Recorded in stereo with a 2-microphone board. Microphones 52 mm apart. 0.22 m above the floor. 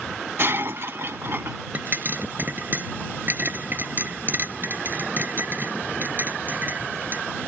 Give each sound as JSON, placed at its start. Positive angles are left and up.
{"t": 0.4, "sound": "breaking glass", "side_deg": -50}
{"t": 1.7, "sound": "a pop", "side_deg": -40}